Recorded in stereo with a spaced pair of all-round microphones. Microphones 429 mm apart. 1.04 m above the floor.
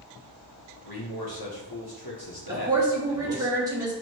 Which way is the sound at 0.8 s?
60° left (ahead or behind).